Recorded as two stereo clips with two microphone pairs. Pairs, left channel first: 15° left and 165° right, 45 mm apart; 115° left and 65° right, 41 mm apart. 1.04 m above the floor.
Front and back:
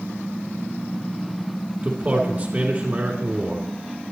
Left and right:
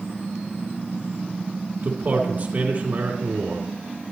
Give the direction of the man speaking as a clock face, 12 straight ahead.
4 o'clock.